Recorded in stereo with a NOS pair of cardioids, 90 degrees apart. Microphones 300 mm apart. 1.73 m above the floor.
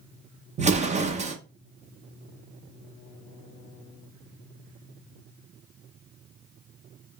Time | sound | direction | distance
0.6 | an explosion | 25° right | 0.6 m